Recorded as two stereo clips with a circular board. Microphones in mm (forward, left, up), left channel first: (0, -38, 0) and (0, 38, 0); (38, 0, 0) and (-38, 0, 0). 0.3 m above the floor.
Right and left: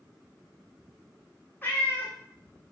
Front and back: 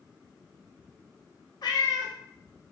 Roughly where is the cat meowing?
Ahead right.